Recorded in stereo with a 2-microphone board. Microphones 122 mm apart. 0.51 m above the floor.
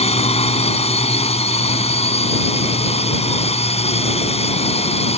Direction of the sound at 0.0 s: 60° left (ahead or behind).